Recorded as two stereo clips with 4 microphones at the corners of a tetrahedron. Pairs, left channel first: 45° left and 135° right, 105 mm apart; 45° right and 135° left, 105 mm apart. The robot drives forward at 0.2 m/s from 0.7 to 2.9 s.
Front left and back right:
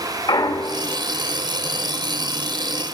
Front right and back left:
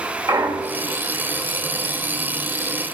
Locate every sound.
0.3 s a clunk: 85° left, 0.8 m; by 1.0 s 90° left, 0.8 m